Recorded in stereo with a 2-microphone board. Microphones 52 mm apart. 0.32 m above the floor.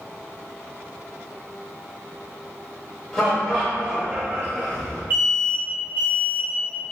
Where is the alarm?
50° right (ahead or behind), 1.4 m.